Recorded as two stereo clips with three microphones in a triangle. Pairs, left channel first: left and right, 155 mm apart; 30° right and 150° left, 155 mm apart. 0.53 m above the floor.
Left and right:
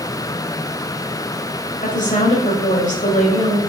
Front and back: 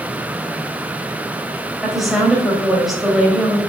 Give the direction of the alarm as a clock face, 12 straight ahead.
I don't hear an alarm.